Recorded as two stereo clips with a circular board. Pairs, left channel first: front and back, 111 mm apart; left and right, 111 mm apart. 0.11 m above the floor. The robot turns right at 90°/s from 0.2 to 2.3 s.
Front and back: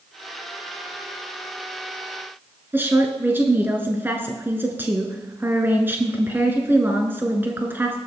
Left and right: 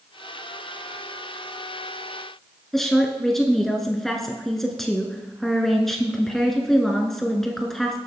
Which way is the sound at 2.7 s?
175° left.